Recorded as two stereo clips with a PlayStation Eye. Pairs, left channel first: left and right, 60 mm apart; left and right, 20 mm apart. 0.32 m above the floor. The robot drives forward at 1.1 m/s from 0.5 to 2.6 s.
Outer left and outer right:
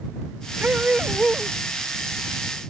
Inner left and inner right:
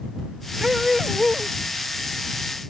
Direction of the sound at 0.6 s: 30° right (ahead or behind).